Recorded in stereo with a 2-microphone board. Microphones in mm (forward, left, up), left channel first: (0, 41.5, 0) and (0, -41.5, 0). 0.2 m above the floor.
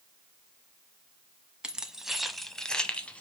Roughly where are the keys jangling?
Centre.